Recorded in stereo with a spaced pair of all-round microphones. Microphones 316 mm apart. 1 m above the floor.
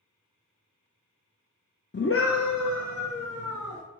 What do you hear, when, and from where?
1.9 s a scream: 35° left (ahead or behind), 0.6 m; by 3.8 s 65° left (ahead or behind), 1.3 m